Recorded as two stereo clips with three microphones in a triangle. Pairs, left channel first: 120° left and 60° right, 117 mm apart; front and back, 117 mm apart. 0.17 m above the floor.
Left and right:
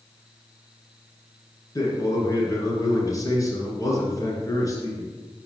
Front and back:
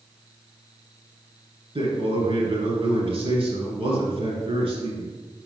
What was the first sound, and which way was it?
A man speaking, 175° left.